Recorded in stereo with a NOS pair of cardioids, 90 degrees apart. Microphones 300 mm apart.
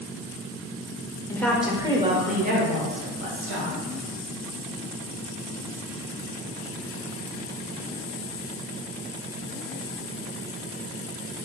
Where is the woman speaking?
10° left, 0.7 m; by 3.8 s 50° right, 1.6 m.